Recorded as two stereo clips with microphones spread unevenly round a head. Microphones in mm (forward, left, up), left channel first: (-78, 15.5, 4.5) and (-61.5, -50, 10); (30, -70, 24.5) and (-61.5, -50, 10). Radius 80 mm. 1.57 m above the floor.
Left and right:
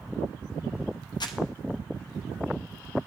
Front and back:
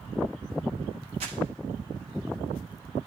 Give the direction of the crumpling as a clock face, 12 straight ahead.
8 o'clock.